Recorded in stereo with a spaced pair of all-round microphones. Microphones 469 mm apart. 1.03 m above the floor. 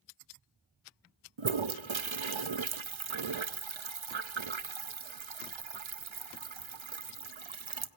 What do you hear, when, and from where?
1.4 s a toilet flushing: 75° right (ahead or behind), 0.7 m